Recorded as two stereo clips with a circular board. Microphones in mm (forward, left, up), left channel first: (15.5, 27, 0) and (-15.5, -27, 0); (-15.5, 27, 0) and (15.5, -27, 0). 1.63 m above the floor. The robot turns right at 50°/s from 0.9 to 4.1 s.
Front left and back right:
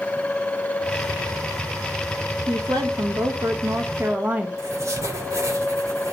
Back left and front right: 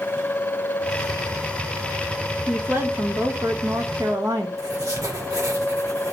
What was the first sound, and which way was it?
A woman speaking, 135° right.